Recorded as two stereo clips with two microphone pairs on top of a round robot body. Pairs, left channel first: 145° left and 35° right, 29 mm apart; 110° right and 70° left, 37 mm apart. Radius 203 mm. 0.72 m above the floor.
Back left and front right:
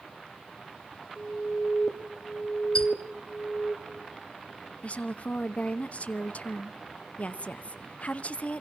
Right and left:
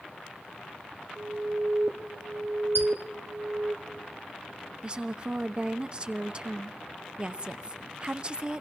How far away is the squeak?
About 0.8 m.